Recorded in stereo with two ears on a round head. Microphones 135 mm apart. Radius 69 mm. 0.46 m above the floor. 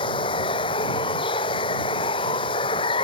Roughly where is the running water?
Left.